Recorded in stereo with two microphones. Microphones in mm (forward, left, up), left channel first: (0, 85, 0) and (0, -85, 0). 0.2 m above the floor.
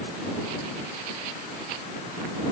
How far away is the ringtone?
No ringtone in this recording.